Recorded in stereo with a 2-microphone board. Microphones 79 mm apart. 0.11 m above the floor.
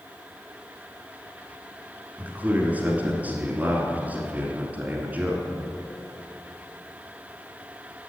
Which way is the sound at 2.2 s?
20° right (ahead or behind).